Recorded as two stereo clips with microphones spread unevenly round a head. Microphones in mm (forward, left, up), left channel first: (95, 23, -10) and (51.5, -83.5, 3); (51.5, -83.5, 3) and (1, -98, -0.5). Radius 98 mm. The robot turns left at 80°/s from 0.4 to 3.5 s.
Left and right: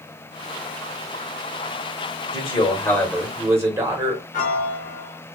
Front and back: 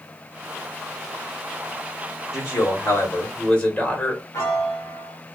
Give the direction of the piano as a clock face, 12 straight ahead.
10 o'clock.